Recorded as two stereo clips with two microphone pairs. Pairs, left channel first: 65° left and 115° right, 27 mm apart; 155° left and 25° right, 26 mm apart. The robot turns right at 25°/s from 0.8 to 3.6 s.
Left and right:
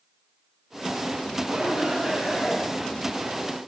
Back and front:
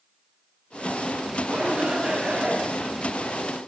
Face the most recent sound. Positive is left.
turn(degrees=-15)